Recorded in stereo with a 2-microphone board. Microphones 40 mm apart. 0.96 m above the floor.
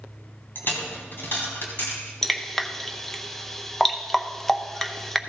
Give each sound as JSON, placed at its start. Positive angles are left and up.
{"t": 0.6, "sound": "a dropped coin", "side_deg": 60, "distance_m": 2.5}
{"t": 2.2, "sound": "dripping", "side_deg": 10, "distance_m": 0.6}